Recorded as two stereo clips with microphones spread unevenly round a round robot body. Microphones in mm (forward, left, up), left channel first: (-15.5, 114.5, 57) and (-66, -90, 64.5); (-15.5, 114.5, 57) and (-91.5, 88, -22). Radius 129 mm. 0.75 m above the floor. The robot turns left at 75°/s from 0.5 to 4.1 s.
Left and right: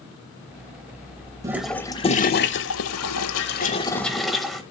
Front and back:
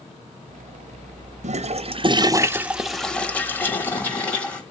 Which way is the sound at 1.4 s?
175° right.